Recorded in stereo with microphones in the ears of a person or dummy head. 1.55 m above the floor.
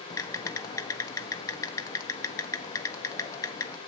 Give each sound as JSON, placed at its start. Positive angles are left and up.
{"t": 0.1, "sound": "typing on a keyboard", "side_deg": 15, "distance_m": 0.8}